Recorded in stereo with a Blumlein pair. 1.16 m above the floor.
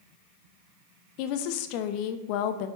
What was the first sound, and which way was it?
A woman speaking, 45° left.